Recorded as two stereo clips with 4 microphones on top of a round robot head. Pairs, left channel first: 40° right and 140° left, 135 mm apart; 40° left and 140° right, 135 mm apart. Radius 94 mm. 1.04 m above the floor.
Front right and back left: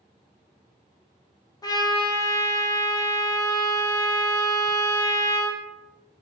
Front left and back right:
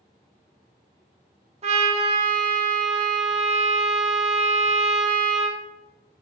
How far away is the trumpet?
About 0.6 m.